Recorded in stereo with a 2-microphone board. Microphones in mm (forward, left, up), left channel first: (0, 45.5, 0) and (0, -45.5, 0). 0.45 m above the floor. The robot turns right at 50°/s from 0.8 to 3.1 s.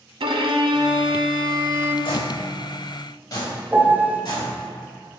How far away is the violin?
About 0.6 m.